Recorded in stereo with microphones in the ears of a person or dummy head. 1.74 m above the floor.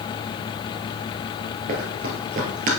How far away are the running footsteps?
About 2 m.